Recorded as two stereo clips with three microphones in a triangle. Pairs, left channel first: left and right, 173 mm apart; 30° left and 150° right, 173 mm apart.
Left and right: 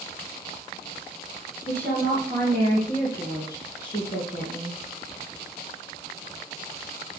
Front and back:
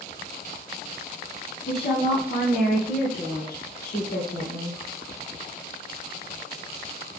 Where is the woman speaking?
10° left, 3 m; by 4.8 s 50° left, 2 m.